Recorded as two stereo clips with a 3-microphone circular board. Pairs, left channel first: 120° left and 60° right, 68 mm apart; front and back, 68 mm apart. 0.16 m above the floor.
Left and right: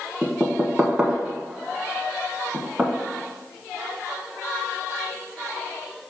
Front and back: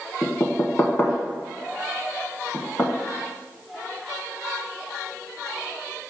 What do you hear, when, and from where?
0.2 s knocking: straight ahead, 0.9 m